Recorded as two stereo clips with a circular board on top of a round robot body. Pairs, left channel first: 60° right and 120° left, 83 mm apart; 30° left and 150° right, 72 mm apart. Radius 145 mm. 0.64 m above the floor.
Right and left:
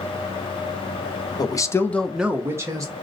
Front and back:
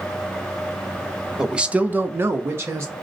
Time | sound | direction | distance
1.4 | a man speaking | 70° right | 0.8 m